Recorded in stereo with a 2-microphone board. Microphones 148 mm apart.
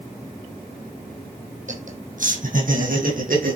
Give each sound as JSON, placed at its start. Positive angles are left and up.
{"t": 1.7, "sound": "laughter", "side_deg": -60, "distance_m": 3.5}